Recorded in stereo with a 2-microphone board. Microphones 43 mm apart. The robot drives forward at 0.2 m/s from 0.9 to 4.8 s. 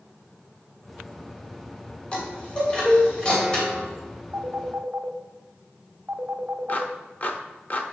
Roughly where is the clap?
Left.